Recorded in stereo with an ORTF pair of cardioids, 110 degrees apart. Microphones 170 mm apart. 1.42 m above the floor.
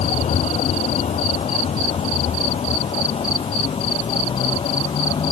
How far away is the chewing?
I don't hear chewing.